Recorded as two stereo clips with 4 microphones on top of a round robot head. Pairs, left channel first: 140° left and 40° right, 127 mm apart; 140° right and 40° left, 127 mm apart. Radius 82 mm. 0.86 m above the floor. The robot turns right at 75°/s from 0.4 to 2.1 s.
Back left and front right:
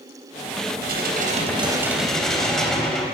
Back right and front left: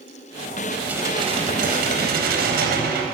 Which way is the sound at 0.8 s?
45° right.